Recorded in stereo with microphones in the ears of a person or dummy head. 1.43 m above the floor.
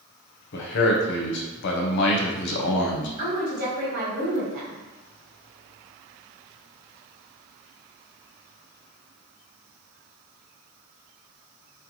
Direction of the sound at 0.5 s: 60° left (ahead or behind).